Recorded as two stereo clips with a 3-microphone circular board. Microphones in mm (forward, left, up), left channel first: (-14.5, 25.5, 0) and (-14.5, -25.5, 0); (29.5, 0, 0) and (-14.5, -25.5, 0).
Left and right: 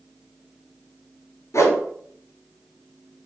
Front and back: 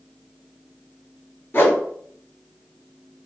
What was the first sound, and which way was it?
A whoosh, 75° left.